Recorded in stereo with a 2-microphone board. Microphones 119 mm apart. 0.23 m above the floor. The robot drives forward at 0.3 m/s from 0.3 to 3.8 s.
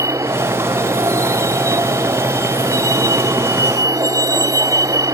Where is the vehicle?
25° right (ahead or behind); by 5.1 s 30° right (ahead or behind).